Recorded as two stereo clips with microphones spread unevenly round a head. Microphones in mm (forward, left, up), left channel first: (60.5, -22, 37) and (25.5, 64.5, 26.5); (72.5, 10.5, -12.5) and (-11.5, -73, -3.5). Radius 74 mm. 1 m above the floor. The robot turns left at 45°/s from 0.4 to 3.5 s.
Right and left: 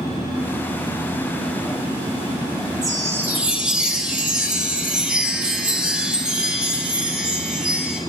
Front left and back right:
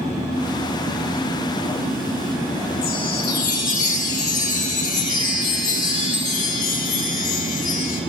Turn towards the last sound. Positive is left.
turn(degrees=35)